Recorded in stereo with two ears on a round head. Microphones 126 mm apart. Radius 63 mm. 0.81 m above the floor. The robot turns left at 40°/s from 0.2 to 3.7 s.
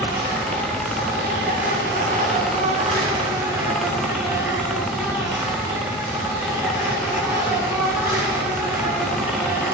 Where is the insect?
20° right, 9 m; by 9.8 s 160° right, 9 m.